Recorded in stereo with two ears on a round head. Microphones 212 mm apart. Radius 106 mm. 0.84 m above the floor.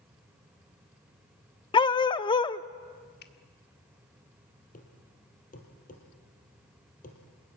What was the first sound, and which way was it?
A dog barking, 20° left (ahead or behind).